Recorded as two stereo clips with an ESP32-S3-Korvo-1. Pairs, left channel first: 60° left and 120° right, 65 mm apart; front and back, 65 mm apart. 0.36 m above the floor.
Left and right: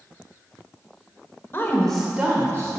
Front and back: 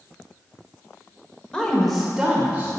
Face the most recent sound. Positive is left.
turn(degrees=-125)